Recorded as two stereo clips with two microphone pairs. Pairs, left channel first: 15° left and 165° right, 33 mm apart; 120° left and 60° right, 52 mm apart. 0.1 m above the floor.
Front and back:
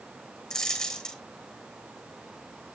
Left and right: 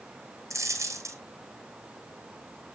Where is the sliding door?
No sliding door in this recording.